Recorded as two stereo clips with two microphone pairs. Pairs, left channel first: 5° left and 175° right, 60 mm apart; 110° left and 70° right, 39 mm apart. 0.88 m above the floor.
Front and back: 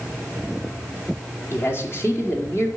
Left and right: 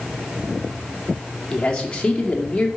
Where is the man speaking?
45° left, 1.7 m.